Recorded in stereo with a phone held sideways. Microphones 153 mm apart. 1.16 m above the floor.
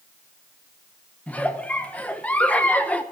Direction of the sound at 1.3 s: 10° left (ahead or behind).